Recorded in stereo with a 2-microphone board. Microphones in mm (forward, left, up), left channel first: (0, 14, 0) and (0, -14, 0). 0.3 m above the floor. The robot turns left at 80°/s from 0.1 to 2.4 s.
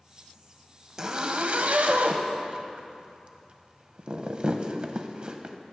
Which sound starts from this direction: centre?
A zipper, at 1.0 s.